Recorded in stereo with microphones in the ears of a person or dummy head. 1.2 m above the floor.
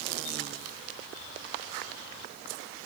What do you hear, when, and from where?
Only background noise.